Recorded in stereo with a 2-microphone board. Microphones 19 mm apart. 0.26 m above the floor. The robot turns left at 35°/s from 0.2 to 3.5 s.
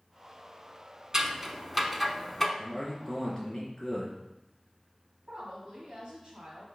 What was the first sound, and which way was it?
Scissors, 35° right (ahead or behind).